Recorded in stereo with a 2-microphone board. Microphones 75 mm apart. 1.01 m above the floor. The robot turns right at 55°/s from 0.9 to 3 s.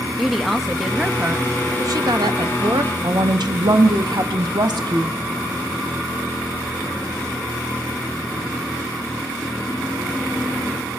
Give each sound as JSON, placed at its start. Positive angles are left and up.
{"t": 0.2, "sound": "a woman speaking", "azimuth_deg": 180, "distance_m": 1.2}
{"t": 3.0, "sound": "a woman speaking", "side_deg": -65, "distance_m": 1.0}